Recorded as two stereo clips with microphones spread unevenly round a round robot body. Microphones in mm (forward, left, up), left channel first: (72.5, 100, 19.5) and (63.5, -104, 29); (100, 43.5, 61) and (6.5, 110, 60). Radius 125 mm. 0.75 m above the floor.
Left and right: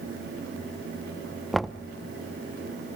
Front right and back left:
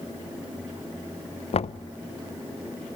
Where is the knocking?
Straight ahead, 0.5 m.